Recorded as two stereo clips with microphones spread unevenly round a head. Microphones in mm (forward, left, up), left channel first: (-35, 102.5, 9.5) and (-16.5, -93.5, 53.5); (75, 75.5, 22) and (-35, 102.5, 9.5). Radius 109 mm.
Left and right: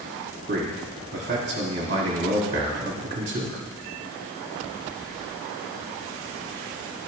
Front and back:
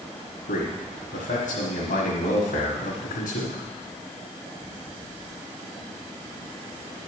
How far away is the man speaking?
About 1.4 m.